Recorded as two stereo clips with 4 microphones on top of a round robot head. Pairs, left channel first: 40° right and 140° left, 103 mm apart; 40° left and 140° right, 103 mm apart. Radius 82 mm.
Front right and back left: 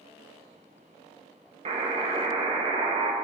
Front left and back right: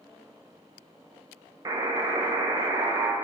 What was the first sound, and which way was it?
A buzzer, 165° left.